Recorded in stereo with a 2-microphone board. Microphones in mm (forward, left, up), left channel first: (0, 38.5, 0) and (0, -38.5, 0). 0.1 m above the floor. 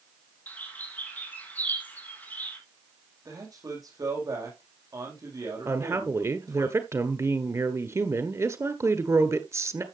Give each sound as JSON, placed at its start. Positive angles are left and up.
{"t": 0.5, "sound": "a bird", "side_deg": 20, "distance_m": 3.5}
{"t": 3.2, "sound": "a man speaking", "side_deg": -50, "distance_m": 5.5}
{"t": 5.7, "sound": "a woman speaking", "side_deg": -40, "distance_m": 1.4}